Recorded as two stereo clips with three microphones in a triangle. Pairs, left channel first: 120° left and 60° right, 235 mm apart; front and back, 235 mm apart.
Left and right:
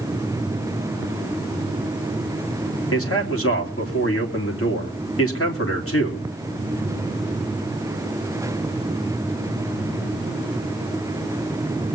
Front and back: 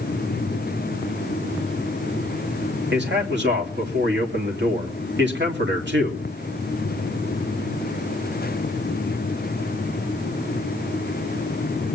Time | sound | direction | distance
2.9 | a man speaking | 140° left | 2.5 m